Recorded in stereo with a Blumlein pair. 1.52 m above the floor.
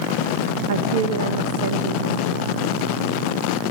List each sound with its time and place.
0.7 s a woman speaking: 55° right, 2.5 m